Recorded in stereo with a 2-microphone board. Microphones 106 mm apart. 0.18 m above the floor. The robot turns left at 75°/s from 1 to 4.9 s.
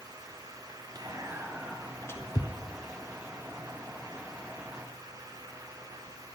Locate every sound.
0.9 s whispering: 45° right (ahead or behind), 1.8 m; by 2.5 s 45° left (ahead or behind), 1.8 m